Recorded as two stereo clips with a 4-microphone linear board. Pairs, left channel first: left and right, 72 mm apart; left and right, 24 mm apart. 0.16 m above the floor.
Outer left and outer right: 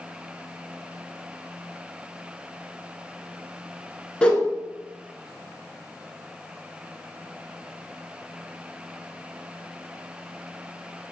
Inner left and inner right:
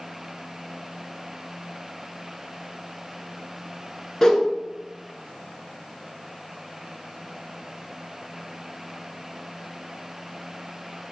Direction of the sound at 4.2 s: 15° left (ahead or behind).